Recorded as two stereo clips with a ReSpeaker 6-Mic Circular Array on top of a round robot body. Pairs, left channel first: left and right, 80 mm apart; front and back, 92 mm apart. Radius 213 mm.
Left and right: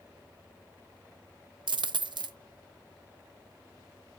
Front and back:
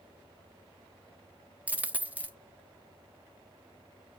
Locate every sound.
1.7 s a dropped coin: 105° right, 0.7 m